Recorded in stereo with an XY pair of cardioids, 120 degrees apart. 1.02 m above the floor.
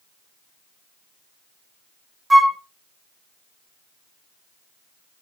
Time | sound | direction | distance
2.3 | a flute | 15° right | 0.5 m